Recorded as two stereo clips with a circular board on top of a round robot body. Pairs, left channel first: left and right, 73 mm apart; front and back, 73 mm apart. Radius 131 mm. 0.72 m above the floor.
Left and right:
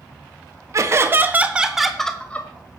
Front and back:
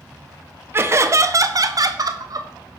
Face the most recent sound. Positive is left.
turn(degrees=145)